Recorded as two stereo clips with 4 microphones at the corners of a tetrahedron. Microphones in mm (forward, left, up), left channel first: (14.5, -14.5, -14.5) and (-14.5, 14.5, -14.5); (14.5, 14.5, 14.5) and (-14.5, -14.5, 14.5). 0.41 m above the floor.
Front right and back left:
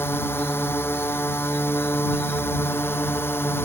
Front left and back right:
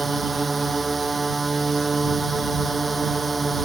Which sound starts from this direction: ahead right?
A drone, at 0.0 s.